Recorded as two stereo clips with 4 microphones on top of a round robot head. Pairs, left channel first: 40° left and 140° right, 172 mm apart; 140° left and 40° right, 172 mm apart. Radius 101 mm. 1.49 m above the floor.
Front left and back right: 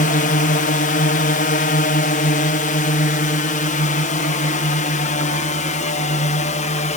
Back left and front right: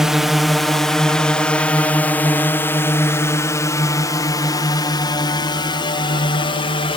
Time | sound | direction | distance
0.0 | a drone | 50° left | ?